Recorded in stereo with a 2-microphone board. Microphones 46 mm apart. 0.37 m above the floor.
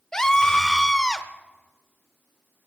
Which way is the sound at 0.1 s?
10° left (ahead or behind).